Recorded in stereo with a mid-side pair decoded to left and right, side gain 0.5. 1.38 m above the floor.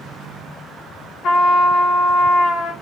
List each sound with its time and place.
1.2 s a trumpet: 60° left, 0.7 m